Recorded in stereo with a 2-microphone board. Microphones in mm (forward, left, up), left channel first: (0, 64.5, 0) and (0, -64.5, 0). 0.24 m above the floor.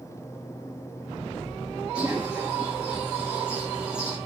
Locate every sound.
1.9 s a bird: 10° right (ahead or behind), 8.5 m